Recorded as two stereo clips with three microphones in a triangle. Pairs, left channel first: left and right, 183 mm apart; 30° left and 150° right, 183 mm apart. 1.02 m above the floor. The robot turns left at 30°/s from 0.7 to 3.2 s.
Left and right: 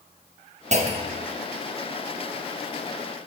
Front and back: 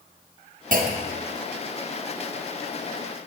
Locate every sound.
0.7 s a clunk: 130° right, 0.7 m; by 1.3 s 145° right, 0.7 m